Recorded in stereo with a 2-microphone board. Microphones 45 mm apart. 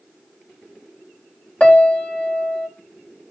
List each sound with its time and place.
1.6 s a piano: 25° left (ahead or behind), 1.2 m